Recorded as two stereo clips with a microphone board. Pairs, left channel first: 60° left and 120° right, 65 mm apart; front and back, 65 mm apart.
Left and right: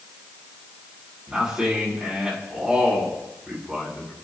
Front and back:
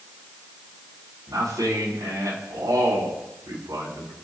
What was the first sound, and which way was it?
A man speaking, 160° left.